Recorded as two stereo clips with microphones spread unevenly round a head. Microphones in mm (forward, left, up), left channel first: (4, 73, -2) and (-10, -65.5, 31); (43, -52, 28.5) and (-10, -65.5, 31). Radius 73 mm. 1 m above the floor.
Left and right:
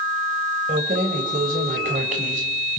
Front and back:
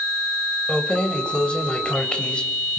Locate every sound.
0.7 s keys jangling: 60° right, 3 m